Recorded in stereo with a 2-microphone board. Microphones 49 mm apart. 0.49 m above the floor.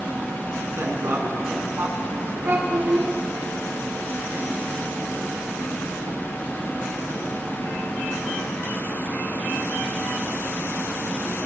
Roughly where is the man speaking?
Right.